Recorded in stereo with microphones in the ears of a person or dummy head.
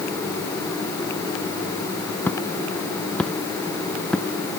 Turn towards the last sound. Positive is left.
turn(degrees=5)  # may be behind; listen again after turning